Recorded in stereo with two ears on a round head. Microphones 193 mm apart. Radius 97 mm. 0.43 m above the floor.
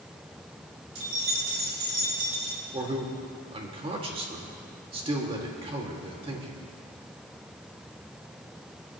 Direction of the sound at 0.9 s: 65° right (ahead or behind).